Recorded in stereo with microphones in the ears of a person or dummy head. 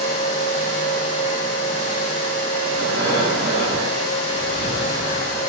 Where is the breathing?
20° left (ahead or behind), 1.6 m.